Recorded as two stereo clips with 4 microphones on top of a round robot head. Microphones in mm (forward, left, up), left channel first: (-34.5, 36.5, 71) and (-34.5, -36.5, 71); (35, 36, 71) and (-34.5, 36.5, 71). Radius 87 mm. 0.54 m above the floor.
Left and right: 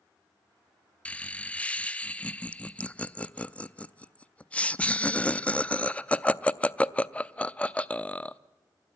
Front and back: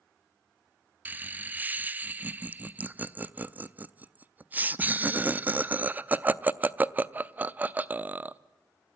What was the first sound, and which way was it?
Laughter, 145° left.